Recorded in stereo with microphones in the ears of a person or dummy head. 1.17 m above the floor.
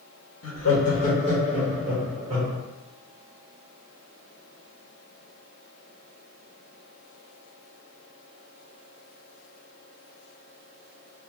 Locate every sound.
0.4 s laughter: 60° left (ahead or behind), 1.3 m; by 2.6 s 25° right (ahead or behind), 1.9 m